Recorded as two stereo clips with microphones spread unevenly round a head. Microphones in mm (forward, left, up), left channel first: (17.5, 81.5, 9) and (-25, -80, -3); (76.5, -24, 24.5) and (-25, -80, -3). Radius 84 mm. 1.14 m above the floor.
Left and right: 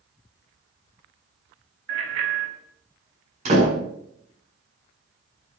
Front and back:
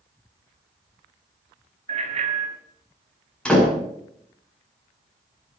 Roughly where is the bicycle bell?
Behind right.